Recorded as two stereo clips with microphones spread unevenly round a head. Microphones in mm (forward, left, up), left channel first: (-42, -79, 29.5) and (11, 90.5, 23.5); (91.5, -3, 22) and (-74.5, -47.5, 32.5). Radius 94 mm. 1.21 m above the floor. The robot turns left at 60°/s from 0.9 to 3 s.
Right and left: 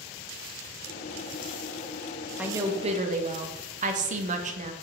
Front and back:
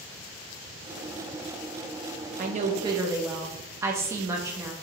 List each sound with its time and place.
2.4 s a woman speaking: 155° left, 0.6 m; by 4.7 s 120° left, 0.6 m